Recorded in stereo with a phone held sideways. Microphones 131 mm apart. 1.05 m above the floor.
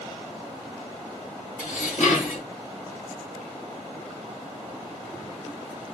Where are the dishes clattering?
75° left (ahead or behind), 1.2 m.